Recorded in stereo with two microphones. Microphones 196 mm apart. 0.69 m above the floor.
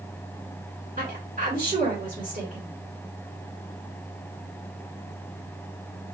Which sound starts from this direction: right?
A woman speaking, at 1.0 s.